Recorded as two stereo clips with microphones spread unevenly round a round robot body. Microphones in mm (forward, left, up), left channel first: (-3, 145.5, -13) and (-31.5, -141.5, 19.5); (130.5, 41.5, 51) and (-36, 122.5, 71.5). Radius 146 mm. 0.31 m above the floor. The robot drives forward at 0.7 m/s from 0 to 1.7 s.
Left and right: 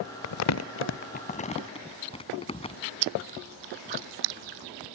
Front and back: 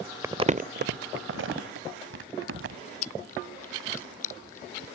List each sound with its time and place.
0.2 s crumpling: 75° left; by 2.8 s 155° left
3.0 s chewing: 85° right